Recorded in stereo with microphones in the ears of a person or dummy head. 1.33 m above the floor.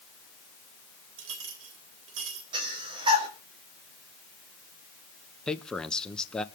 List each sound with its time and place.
1.2 s a clink: 80° right, 3 m
2.5 s breathing: 30° right (ahead or behind), 4 m
5.5 s a man speaking: centre (ahead or behind), 1.1 m